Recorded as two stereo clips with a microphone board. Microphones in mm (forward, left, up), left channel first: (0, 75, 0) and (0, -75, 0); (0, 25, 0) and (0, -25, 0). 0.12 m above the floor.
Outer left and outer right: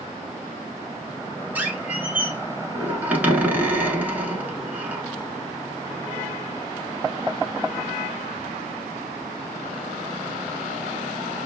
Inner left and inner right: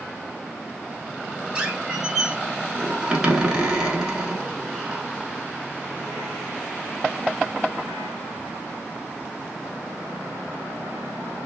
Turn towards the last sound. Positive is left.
turn(degrees=-10)  # may be behind; listen again after turning